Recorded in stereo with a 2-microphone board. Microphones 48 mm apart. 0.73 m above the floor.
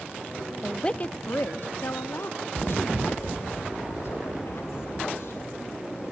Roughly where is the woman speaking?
Centre.